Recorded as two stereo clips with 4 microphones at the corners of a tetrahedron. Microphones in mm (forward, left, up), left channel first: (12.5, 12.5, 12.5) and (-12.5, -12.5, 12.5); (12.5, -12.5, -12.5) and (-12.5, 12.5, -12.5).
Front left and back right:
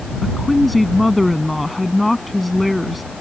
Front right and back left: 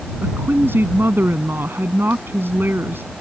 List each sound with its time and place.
0.2 s a woman speaking: 135° left